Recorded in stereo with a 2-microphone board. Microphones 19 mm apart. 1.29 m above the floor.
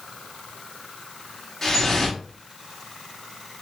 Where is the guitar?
I don't hear a guitar.